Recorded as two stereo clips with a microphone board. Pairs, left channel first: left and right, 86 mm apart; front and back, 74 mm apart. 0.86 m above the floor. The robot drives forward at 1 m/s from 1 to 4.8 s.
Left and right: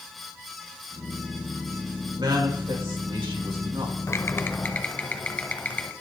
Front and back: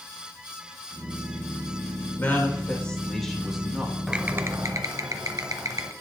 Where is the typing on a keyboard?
105° left, 0.6 m; by 5.9 s 155° left, 1.0 m.